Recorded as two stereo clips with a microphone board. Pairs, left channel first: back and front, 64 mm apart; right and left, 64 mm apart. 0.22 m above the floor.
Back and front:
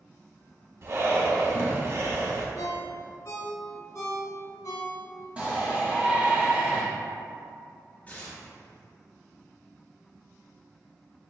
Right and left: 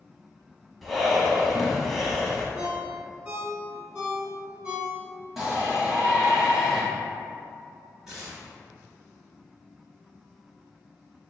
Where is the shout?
20° left, 1.0 m.